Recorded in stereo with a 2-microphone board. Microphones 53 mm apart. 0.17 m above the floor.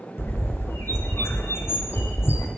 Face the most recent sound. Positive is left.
turn(degrees=55)  # may be behind; listen again after turning